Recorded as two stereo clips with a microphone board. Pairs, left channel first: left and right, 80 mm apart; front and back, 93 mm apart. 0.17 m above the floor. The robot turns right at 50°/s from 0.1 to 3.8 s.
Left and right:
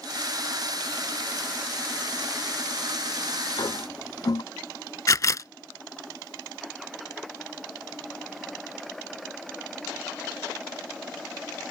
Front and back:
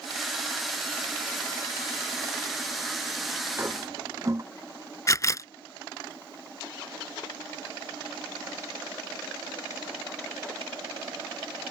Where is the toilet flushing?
115° left; by 4.4 s 125° left.